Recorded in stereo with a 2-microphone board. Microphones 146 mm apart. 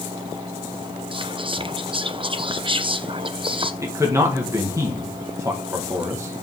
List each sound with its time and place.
1.1 s whispering: 35° right (ahead or behind), 0.8 m
3.8 s a man speaking: 20° right (ahead or behind), 1.6 m